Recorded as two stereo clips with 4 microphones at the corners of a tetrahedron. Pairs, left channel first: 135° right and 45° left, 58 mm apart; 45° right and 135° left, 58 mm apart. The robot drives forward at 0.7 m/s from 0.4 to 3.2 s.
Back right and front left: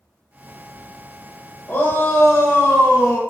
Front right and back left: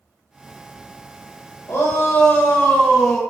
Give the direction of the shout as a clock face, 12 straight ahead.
3 o'clock.